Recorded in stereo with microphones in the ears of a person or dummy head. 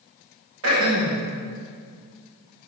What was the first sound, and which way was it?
Throat clearing, 85° right.